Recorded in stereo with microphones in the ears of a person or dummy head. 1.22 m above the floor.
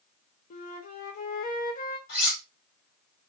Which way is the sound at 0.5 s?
40° left (ahead or behind).